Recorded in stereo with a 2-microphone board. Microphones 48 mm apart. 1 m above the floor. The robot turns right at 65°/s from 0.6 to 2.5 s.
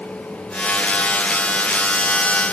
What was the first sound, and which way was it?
Only background noise.